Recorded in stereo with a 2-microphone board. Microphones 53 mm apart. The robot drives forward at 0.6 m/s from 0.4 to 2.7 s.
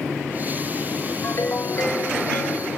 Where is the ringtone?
50° left (ahead or behind), 1.1 m; by 2.7 s 40° left (ahead or behind), 1.3 m.